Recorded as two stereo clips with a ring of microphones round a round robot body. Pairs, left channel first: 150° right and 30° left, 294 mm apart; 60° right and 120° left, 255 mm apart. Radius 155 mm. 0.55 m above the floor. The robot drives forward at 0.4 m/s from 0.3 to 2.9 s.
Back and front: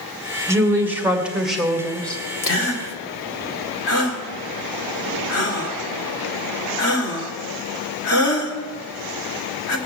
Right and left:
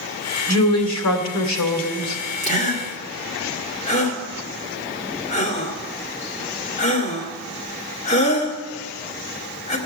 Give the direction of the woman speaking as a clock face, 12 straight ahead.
2 o'clock.